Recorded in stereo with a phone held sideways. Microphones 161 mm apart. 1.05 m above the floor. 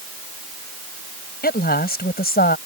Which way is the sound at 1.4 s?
65° left (ahead or behind).